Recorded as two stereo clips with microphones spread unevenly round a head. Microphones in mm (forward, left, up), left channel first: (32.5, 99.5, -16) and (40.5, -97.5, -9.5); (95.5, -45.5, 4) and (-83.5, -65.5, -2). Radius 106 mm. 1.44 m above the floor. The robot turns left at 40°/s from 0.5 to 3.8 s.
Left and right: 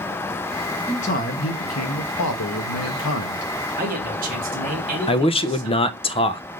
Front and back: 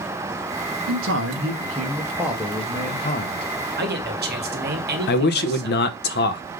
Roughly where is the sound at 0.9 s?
Behind.